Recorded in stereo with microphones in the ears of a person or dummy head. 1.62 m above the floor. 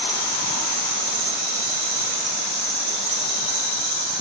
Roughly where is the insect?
Right.